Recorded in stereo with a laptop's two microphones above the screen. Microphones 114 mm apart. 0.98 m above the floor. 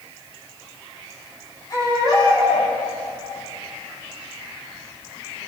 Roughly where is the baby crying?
Left.